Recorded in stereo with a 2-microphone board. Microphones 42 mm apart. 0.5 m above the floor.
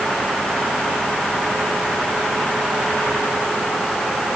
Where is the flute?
I don't hear a flute.